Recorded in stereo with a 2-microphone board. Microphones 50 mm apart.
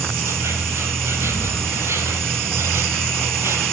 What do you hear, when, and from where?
0.0 s an insect: 60° right (ahead or behind), 2 m